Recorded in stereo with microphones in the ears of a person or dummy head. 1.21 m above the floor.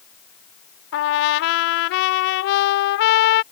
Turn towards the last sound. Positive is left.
turn(degrees=60)  # may be behind; listen again after turning